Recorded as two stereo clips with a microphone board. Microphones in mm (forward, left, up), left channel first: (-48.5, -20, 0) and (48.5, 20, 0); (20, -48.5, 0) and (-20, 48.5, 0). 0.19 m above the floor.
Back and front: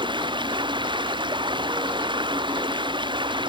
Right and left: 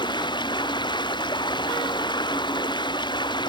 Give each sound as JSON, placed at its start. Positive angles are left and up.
{"t": 0.0, "sound": "running water", "azimuth_deg": -20}